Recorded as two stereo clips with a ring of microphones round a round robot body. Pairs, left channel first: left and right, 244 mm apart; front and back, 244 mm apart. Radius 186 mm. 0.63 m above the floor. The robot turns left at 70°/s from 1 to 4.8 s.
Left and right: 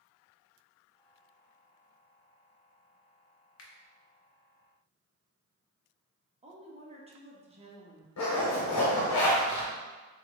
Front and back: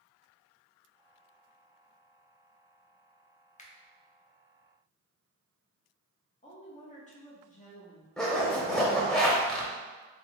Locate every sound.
3.6 s a finger snap: 65° left, 0.9 m; by 3.7 s 55° left, 0.9 m
6.4 s a woman speaking: 40° right, 1.0 m
8.2 s a zipper: 90° left, 1.0 m